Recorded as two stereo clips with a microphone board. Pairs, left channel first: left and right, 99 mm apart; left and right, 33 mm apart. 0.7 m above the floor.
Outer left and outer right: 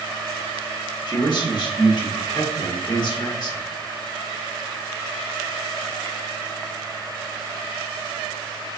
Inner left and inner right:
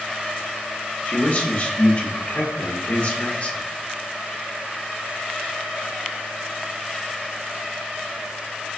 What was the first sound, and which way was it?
A man speaking, 50° left (ahead or behind).